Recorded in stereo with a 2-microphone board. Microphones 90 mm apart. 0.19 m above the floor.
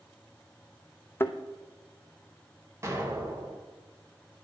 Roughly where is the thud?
Left.